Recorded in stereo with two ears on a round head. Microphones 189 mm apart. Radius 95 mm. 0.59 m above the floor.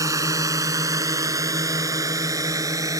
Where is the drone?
15° right (ahead or behind).